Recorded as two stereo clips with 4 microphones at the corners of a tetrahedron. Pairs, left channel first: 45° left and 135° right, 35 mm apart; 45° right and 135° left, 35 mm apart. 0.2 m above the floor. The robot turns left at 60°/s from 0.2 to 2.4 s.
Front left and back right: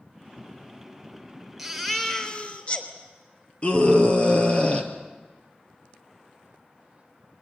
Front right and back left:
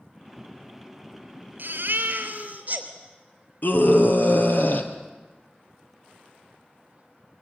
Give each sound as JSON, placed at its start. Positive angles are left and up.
{"t": 1.6, "sound": "a baby crying", "azimuth_deg": 140, "distance_m": 3.0}
{"t": 3.6, "sound": "a scream", "azimuth_deg": -10, "distance_m": 3.5}